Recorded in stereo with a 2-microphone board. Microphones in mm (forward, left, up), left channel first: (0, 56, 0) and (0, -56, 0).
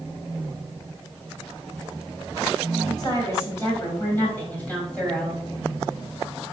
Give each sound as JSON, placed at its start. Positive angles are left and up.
{"t": 3.0, "sound": "a woman speaking", "side_deg": 35, "distance_m": 3.5}